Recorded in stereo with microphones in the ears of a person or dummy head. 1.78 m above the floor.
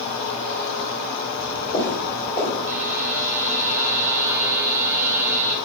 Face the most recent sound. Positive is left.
turn(degrees=-15)  # may be behind; listen again after turning